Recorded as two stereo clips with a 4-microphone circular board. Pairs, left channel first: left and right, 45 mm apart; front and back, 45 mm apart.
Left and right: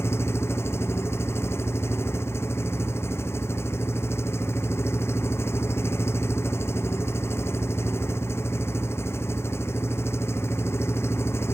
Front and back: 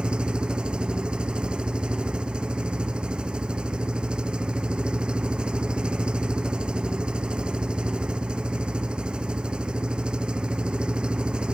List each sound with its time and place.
0.0 s an engine running: 110° left